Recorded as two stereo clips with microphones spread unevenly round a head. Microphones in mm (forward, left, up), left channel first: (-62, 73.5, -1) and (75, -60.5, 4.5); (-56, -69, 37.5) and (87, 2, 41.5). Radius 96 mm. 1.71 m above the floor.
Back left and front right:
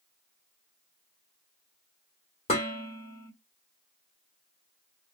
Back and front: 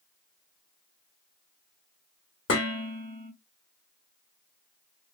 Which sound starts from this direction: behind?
Dishes clattering, at 2.5 s.